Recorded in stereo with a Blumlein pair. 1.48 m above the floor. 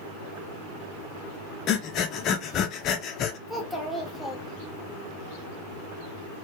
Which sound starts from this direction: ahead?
A child speaking, at 3.5 s.